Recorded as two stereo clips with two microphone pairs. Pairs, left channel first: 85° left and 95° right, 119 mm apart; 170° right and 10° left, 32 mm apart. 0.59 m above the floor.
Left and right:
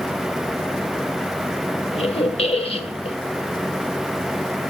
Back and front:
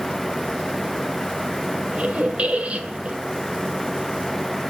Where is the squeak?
55° left, 1.8 m.